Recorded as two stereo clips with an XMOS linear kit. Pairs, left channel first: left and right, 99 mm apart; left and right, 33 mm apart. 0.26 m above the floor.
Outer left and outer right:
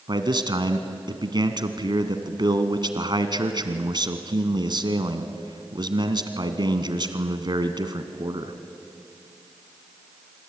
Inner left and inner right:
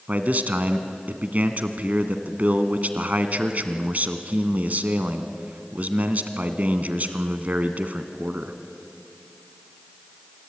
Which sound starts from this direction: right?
A man speaking, at 0.1 s.